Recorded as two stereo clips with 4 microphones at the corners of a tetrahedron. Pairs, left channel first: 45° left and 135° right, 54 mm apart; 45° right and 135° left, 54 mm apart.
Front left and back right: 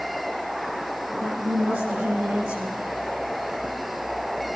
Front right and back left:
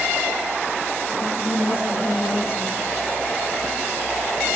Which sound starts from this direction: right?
A woman speaking, at 1.1 s.